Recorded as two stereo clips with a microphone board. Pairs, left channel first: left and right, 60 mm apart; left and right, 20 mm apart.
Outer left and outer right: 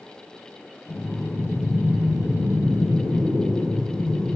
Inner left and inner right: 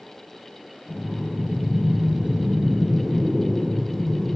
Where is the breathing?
55° left (ahead or behind), 3 m.